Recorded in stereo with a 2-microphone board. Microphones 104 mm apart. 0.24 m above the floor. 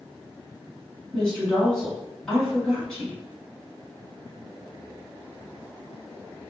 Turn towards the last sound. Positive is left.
turn(degrees=5)  # may be behind; listen again after turning